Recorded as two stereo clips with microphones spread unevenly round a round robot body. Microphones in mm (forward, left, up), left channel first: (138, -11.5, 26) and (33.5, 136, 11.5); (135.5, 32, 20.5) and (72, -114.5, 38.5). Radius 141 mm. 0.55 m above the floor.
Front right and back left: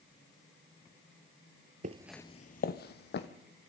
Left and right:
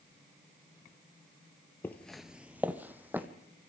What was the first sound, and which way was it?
Footsteps, 150° left.